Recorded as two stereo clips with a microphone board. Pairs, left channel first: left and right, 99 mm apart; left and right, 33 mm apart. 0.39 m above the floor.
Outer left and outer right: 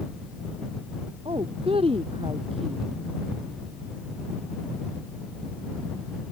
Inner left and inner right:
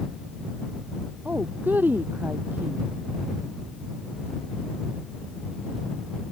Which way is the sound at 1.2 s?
80° right.